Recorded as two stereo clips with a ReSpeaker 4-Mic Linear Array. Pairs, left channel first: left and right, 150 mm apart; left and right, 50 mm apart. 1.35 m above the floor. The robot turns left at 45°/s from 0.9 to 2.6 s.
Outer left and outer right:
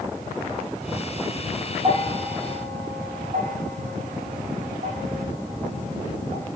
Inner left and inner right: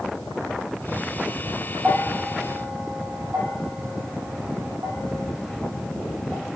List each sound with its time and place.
1.8 s a bell: 30° right (ahead or behind), 0.7 m; by 6.5 s 65° right (ahead or behind), 0.7 m